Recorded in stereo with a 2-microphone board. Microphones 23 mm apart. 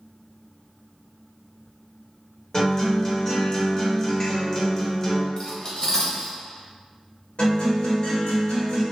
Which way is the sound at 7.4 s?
40° left (ahead or behind).